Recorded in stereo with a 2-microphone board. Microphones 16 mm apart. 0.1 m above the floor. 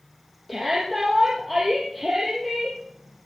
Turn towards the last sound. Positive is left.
turn(degrees=0)  # may be behind; listen again after turning